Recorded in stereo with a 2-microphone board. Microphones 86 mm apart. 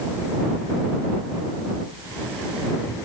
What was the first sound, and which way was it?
Only background noise.